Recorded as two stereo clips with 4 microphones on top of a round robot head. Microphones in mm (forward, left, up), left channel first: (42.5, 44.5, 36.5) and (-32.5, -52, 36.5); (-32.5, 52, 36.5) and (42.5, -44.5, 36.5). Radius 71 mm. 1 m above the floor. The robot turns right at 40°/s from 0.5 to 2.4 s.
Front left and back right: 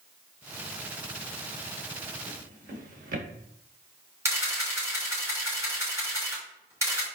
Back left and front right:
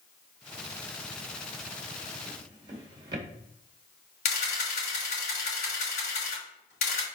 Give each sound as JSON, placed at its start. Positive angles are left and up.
{"t": 2.3, "sound": "a drawer", "azimuth_deg": -115, "distance_m": 1.5}
{"t": 4.2, "sound": "a camera shutter", "azimuth_deg": 160, "distance_m": 3.5}